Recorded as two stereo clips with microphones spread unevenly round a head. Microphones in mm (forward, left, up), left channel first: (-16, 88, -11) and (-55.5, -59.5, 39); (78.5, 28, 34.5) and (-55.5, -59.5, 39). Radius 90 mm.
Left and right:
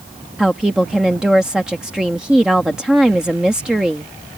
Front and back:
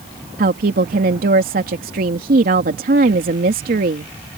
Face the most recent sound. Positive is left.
turn(degrees=170)